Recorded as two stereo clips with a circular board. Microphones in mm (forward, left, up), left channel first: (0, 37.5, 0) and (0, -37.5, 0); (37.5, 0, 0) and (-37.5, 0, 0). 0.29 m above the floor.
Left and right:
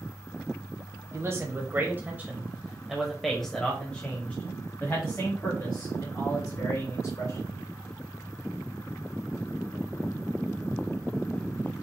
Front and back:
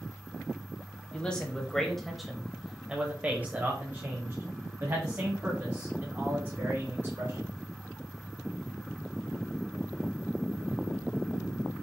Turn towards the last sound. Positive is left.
turn(degrees=135)